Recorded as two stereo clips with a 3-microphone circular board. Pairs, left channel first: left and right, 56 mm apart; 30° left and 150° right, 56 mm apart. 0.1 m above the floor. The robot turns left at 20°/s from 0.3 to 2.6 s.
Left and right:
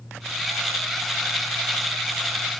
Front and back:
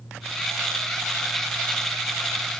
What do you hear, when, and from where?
Only background noise.